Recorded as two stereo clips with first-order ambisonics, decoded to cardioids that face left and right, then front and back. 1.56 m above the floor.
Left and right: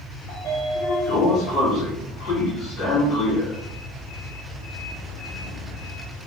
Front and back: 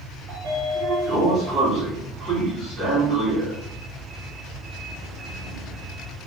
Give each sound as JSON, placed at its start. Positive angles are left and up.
{"t": 0.3, "sound": "a sliding door", "azimuth_deg": 130, "distance_m": 1.7}